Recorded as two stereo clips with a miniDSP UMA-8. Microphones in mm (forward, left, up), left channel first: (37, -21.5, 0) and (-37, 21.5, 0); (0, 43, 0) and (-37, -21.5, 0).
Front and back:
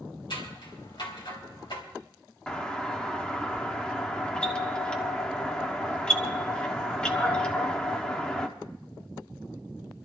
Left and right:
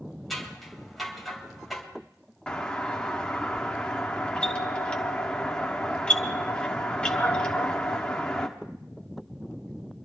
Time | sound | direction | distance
0.3 | scissors | 30° right | 3 m
2.5 | a doorbell | 15° left | 1.2 m